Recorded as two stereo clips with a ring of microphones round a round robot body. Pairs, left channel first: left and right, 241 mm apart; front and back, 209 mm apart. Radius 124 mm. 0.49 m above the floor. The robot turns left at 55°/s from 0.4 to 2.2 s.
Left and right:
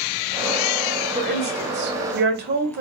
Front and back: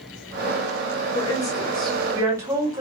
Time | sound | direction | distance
1.1 | a woman speaking | 50° right | 1.7 m